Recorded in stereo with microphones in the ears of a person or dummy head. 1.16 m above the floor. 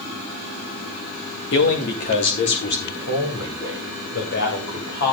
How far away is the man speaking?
About 2.5 m.